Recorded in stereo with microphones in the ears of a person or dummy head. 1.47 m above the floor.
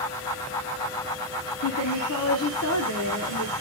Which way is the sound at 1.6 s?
60° left (ahead or behind).